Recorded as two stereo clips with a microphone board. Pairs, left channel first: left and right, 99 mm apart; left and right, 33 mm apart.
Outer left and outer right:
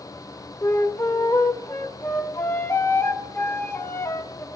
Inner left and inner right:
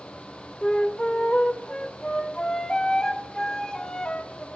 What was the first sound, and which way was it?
A flute, 25° left (ahead or behind).